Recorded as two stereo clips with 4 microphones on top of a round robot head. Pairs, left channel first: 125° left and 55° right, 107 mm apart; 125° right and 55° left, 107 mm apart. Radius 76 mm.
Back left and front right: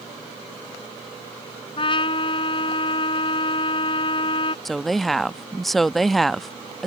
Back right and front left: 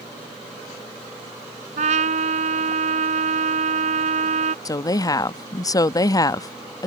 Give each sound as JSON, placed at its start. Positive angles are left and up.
{"t": 1.8, "sound": "a trumpet", "azimuth_deg": 80}
{"t": 4.7, "sound": "a woman speaking", "azimuth_deg": -150}